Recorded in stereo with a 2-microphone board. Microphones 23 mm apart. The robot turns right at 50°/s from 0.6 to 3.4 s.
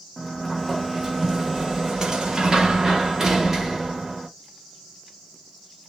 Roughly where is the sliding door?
Behind.